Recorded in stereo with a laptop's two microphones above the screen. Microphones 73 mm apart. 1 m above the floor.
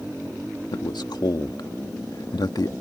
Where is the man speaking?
75° left (ahead or behind).